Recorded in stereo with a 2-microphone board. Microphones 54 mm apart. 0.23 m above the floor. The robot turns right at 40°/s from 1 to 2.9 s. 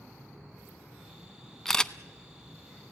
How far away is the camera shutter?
About 0.5 m.